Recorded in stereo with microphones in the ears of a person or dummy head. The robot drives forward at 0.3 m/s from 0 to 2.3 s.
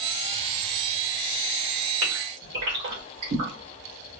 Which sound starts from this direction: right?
A gasp, at 2.0 s.